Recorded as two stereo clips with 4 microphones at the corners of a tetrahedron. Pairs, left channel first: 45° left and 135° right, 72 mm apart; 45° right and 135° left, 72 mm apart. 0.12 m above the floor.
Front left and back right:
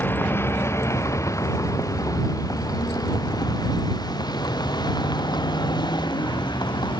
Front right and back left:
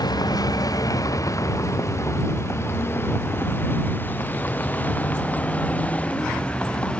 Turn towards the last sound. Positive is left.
turn(degrees=30)